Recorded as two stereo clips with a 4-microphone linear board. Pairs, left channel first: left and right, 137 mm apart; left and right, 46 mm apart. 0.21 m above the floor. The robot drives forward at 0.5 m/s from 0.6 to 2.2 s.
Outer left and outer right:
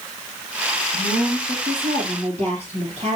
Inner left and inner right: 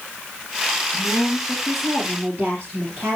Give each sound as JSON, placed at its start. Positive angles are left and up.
{"t": 0.9, "sound": "a woman speaking", "side_deg": -55, "distance_m": 5.0}